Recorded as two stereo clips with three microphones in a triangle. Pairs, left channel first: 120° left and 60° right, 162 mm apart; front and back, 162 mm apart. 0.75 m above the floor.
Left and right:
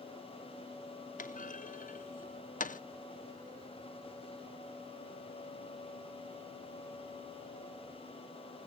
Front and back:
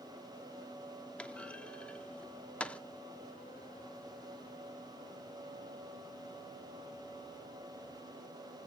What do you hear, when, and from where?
1.2 s a clunk: 80° left, 0.5 m